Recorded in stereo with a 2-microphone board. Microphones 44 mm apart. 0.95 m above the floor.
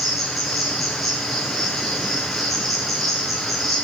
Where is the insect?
Centre (ahead or behind), 1.8 m.